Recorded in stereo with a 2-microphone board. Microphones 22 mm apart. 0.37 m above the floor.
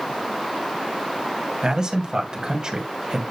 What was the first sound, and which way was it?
A man speaking, 40° right (ahead or behind).